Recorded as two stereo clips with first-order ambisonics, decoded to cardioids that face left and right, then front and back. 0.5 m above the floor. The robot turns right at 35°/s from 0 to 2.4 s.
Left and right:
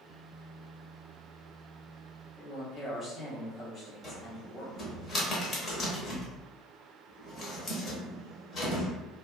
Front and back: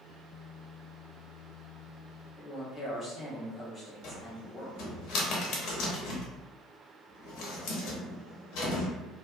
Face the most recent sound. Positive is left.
turn(degrees=25)